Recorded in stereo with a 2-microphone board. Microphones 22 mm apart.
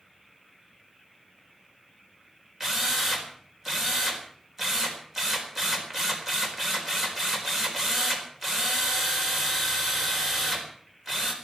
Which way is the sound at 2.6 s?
15° right (ahead or behind).